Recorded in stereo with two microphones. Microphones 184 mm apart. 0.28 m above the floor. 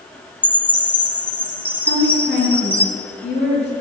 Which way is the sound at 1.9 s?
40° left (ahead or behind).